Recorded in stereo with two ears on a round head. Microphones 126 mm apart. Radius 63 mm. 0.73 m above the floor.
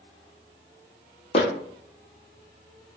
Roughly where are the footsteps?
Left.